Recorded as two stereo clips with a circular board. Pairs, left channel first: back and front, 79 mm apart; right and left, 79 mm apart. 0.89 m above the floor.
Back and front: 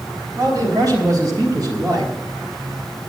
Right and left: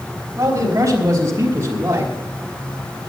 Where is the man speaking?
35° left, 4 m; by 2.1 s 25° left, 3 m.